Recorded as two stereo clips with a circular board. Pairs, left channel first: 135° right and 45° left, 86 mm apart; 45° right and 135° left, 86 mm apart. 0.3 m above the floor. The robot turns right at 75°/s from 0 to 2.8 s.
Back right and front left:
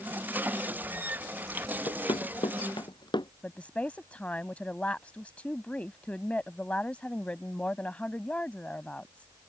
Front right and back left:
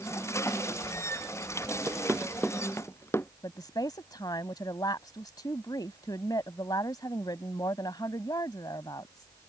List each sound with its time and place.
1.9 s running footsteps: 165° right; by 3.3 s 105° right
3.4 s a woman speaking: 65° right